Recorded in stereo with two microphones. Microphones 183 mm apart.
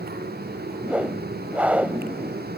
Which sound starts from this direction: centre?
A whoosh, at 0.8 s.